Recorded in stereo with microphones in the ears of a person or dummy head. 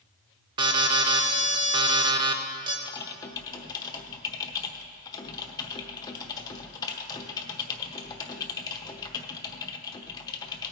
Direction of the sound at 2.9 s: 20° left (ahead or behind).